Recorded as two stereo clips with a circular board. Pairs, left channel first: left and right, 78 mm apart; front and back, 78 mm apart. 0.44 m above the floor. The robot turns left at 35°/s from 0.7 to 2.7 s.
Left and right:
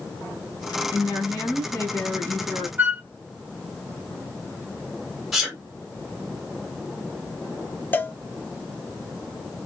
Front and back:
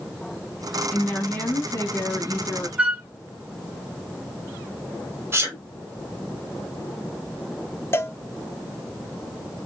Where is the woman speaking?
85° left, 2 m; by 2.7 s 20° left, 2 m.